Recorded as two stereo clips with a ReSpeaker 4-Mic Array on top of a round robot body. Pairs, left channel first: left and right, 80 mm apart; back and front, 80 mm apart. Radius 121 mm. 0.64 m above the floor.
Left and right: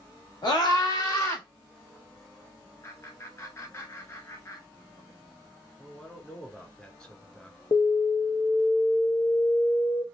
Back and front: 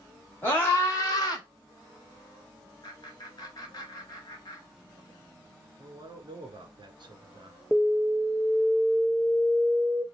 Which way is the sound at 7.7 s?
95° left.